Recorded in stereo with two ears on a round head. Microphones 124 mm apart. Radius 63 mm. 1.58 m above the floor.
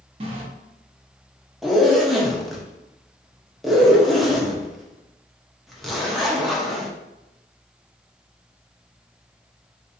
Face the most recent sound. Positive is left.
turn(degrees=0)  # may be behind; listen again after turning